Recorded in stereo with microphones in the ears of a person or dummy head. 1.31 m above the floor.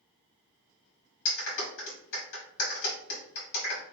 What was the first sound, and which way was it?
A clap, 70° left (ahead or behind).